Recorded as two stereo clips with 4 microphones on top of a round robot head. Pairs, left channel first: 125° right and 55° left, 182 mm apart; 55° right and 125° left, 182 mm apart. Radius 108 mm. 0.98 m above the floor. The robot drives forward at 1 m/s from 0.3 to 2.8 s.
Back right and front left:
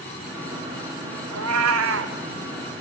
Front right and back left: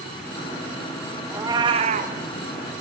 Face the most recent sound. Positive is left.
turn(degrees=120)